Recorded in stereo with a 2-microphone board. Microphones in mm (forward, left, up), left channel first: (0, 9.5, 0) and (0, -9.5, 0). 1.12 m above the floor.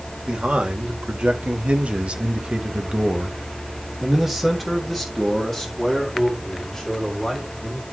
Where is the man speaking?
70° right (ahead or behind), 1.7 m; by 7.8 s 15° left (ahead or behind), 3 m.